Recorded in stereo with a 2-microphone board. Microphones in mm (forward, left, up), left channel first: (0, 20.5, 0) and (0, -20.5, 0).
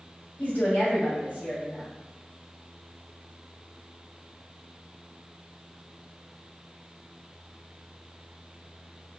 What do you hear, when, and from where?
0.4 s a woman speaking: 45° left (ahead or behind), 1.3 m